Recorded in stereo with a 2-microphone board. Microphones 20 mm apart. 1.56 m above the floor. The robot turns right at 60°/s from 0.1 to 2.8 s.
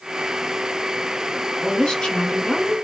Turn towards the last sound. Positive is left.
turn(degrees=110)